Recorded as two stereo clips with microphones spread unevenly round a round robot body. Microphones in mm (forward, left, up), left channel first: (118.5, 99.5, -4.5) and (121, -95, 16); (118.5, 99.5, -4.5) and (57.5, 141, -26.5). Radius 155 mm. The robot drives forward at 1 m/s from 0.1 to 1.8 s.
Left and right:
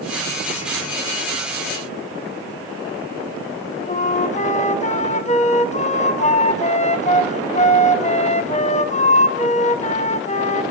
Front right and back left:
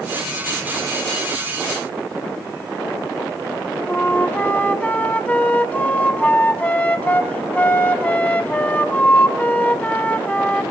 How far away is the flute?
About 2 m.